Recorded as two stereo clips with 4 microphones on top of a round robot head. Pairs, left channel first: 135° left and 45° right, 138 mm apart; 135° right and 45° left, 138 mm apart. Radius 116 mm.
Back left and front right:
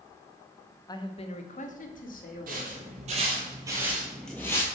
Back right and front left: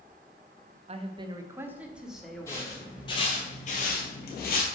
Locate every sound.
0.9 s a man speaking: 75° left, 0.8 m; by 2.9 s 140° left, 2.0 m
2.5 s footsteps: 65° right, 1.4 m; by 4.7 s 155° right, 1.1 m